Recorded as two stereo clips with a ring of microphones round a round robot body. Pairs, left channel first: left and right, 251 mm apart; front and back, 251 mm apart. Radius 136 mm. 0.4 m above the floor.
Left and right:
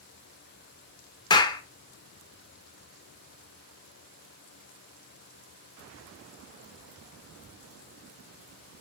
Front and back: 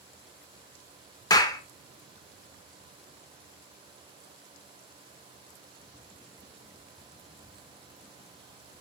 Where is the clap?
50° left, 0.6 m.